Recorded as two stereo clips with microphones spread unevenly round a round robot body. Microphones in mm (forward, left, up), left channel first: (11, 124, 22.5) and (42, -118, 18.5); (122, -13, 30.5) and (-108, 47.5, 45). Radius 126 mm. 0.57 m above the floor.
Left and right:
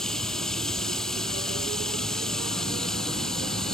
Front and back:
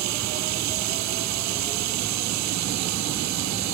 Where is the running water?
175° right.